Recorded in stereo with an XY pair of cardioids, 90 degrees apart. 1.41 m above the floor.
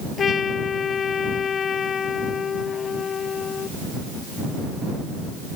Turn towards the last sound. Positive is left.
turn(degrees=55)